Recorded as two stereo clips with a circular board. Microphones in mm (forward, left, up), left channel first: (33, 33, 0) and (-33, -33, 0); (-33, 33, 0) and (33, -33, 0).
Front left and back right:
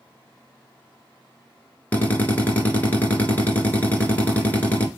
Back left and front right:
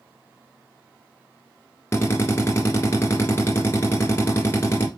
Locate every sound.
1.9 s a drill: 100° left, 1.7 m